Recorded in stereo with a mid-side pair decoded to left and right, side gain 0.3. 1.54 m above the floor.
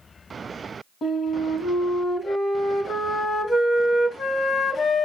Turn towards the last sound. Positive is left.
turn(degrees=65)